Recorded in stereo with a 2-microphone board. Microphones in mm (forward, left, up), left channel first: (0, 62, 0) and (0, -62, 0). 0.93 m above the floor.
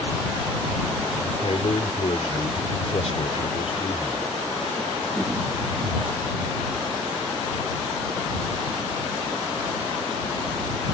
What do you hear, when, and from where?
1.2 s a man speaking: 60° left (ahead or behind)